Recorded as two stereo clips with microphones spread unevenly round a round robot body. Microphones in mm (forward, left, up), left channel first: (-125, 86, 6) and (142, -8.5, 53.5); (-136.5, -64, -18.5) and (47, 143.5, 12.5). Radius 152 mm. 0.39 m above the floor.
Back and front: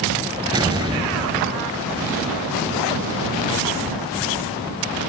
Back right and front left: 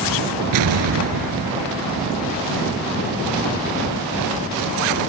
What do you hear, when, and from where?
0.5 s an explosion: 55° left